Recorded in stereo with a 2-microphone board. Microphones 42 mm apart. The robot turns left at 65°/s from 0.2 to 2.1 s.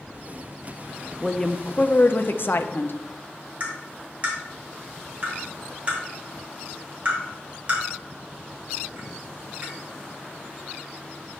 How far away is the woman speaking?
About 0.5 m.